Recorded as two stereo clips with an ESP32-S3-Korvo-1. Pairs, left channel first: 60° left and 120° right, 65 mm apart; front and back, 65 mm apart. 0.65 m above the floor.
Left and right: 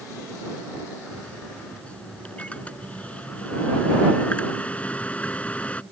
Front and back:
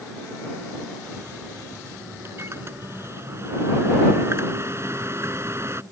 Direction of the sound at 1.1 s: 130° left.